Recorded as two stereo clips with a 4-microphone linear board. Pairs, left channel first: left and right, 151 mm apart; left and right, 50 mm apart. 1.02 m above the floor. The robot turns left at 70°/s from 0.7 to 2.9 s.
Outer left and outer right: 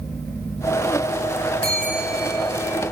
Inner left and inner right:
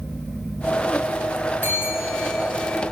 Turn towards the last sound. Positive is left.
turn(degrees=50)